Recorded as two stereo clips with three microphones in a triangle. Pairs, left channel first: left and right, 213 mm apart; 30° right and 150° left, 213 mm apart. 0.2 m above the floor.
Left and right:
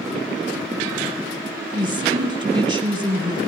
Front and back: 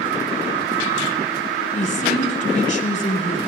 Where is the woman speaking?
45° right, 1.1 m.